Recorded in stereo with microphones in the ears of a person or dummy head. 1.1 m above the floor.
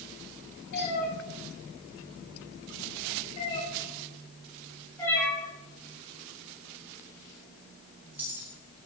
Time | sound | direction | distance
0.7 | a cat meowing | 50° left (ahead or behind) | 4 m